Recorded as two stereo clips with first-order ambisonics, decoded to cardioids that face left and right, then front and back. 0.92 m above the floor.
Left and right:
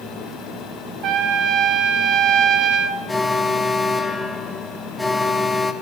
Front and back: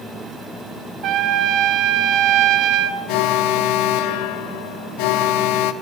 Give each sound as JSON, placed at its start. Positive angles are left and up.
{"t": 1.0, "sound": "a trumpet", "azimuth_deg": -135, "distance_m": 1.9}
{"t": 3.1, "sound": "an alarm", "azimuth_deg": 5, "distance_m": 1.4}